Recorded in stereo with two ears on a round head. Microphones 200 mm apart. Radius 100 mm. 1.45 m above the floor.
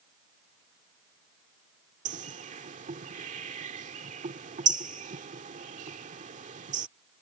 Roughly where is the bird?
Right.